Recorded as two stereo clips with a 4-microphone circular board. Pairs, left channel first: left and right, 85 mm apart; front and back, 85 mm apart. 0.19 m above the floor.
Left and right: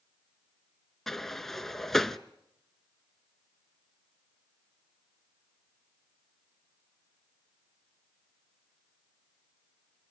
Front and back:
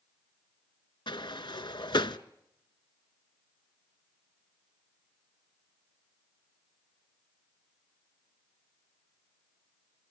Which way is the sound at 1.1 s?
5° left.